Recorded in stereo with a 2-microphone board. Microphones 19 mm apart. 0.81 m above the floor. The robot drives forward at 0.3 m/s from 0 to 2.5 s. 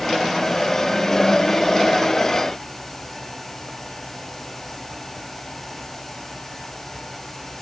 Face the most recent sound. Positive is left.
No sound to turn to.